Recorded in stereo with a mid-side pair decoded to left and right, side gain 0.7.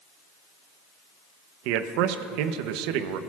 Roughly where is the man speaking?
Right.